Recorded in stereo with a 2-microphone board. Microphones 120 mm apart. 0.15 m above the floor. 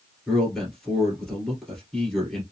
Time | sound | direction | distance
0.3 | a man speaking | 5° left (ahead or behind) | 2 m